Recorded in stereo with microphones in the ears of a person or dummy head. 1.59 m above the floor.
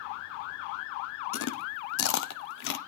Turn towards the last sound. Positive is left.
turn(degrees=65)  # may be behind; listen again after turning